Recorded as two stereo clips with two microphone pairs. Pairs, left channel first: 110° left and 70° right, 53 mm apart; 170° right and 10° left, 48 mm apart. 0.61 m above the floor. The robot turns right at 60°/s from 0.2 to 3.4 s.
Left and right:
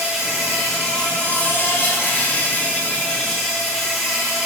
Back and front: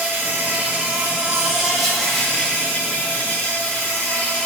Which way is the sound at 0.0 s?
Straight ahead.